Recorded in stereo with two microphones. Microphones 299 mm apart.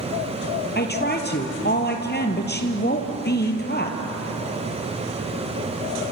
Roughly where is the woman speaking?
Left.